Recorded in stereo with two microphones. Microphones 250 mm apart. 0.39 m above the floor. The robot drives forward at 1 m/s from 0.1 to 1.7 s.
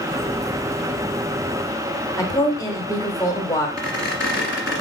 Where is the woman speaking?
15° left (ahead or behind), 0.8 m.